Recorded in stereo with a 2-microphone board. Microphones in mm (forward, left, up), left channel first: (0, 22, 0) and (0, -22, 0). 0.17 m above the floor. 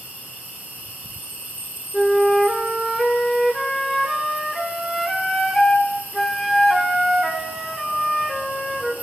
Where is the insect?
40° right (ahead or behind), 3 m.